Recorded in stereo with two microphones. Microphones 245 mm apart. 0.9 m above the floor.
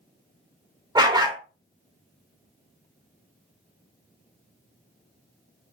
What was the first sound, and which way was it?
A dog barking, 20° right (ahead or behind).